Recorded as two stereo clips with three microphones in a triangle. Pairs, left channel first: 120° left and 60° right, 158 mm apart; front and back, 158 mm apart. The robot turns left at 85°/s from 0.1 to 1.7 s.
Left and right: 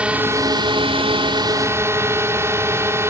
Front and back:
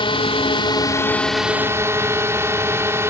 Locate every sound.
0.0 s a drone: 15° left; by 3.1 s 120° right